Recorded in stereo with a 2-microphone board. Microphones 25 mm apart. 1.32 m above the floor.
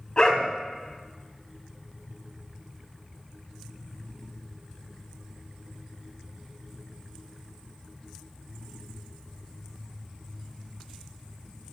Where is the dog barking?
30° left (ahead or behind), 3 m.